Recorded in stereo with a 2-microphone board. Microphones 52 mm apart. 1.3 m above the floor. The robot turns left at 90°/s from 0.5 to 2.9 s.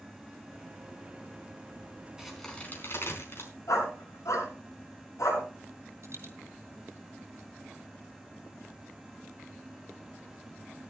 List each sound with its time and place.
2.2 s a crack: 15° right (ahead or behind), 4.5 m; by 3.5 s 50° left (ahead or behind), 4.5 m
3.7 s a dog barking: 80° left, 6.5 m
6.0 s a dropped coin: 55° right (ahead or behind), 3.5 m